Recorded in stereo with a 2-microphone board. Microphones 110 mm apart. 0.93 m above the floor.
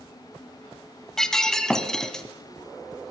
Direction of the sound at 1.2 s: 5° left (ahead or behind).